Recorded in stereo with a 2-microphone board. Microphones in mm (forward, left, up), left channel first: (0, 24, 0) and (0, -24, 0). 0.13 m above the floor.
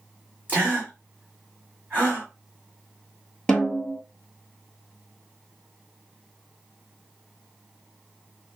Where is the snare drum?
10° left (ahead or behind), 0.9 m.